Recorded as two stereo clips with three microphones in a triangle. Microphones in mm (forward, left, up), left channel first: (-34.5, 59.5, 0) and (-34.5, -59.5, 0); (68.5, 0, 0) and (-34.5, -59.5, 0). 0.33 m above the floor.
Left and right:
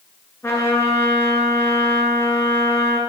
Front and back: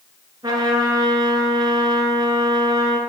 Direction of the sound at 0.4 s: 160° left.